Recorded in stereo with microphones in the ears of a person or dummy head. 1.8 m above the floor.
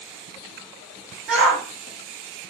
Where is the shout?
5° right (ahead or behind), 1.8 m.